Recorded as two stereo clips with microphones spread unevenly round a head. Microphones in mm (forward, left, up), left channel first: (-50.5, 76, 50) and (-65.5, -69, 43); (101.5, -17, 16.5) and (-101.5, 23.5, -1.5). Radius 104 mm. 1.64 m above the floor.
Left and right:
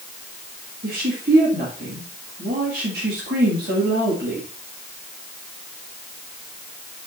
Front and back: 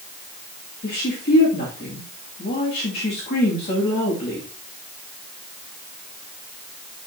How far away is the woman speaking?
About 2.5 m.